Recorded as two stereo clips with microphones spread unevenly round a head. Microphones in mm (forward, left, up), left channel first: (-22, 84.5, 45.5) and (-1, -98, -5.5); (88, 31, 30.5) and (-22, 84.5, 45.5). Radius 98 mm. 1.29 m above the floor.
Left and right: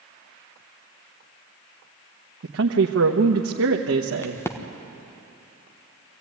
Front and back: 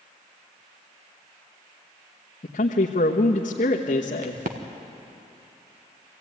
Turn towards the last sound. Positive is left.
turn(degrees=180)